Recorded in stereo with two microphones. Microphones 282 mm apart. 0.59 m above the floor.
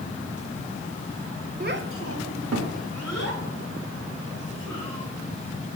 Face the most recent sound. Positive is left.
turn(degrees=-60)  # may be behind; listen again after turning